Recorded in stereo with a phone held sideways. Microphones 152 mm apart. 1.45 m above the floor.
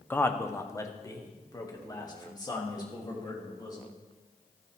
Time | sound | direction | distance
0.1 | a man speaking | 15° left (ahead or behind) | 0.9 m